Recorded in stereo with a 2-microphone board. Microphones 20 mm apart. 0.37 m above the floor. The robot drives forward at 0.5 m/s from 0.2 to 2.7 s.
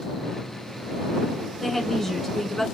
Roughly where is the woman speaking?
Centre.